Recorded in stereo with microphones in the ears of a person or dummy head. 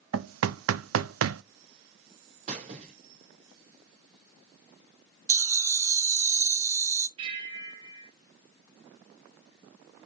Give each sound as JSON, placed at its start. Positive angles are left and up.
{"t": 0.1, "sound": "knocking", "side_deg": -85, "distance_m": 0.5}
{"t": 2.5, "sound": "a squeak", "side_deg": -40, "distance_m": 1.9}
{"t": 5.3, "sound": "laughter", "side_deg": -20, "distance_m": 1.0}
{"t": 7.2, "sound": "a bell", "side_deg": -35, "distance_m": 3.5}